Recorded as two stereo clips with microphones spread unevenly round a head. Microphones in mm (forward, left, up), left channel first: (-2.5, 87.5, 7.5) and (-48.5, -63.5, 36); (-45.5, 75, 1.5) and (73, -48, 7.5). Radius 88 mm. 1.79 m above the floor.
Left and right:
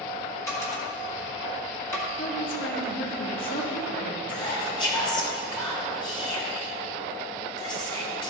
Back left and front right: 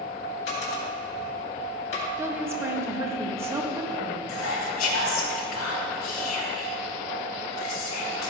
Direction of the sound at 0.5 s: 150° left.